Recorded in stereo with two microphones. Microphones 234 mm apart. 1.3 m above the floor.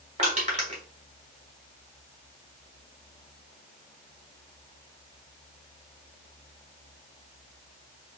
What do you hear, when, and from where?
0.2 s crushing: 30° right (ahead or behind), 1.5 m